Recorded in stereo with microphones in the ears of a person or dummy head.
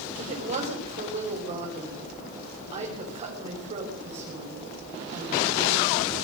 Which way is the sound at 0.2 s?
35° right (ahead or behind).